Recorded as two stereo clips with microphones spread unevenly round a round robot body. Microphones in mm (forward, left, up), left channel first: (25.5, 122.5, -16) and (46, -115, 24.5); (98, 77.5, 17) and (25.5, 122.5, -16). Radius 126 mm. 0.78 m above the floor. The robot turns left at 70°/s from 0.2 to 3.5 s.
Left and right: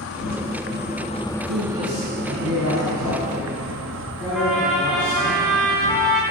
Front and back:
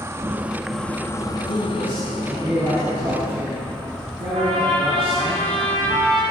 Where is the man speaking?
55° right, 7 m; by 5.3 s 165° left, 7 m.